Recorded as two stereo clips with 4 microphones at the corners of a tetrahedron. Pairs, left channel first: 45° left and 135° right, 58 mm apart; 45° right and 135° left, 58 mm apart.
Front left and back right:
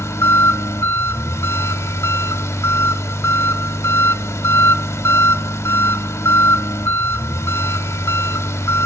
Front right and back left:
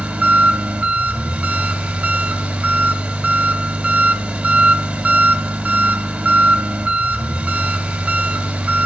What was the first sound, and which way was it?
An engine running, 70° left.